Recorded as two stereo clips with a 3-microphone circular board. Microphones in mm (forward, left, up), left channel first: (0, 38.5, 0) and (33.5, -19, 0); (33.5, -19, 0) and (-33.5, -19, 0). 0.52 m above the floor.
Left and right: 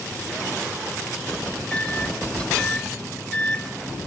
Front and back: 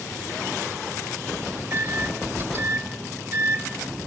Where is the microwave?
Straight behind, 1.2 m.